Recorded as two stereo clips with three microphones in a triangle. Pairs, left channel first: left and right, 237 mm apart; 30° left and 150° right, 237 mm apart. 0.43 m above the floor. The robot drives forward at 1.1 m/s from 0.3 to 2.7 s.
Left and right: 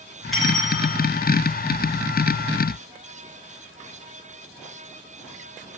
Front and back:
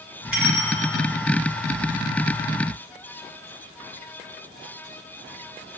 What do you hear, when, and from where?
0.3 s a bell: straight ahead, 2.5 m